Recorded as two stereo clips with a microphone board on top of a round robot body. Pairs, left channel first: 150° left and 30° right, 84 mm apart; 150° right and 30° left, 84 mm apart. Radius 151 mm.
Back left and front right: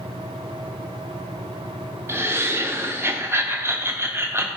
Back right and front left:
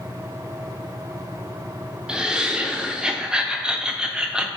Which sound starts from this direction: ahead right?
Laughter, at 2.1 s.